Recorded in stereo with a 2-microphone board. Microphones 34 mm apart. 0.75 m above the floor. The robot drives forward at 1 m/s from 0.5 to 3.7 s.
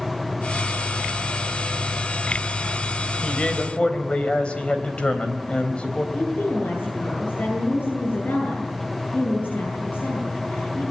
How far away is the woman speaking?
About 10 m.